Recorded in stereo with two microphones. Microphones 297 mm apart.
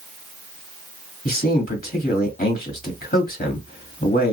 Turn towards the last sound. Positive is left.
turn(degrees=30)  # may be behind; listen again after turning